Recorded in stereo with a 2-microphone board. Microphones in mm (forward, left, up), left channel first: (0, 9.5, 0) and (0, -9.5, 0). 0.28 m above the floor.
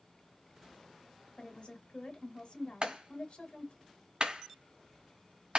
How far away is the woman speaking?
About 1.4 m.